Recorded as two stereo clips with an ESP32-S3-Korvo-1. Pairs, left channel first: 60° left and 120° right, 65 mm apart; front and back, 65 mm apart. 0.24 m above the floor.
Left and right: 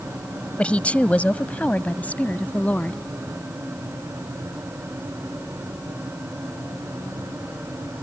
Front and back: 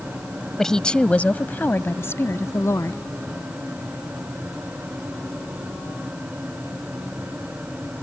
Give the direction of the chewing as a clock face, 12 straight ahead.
No chewing in this recording.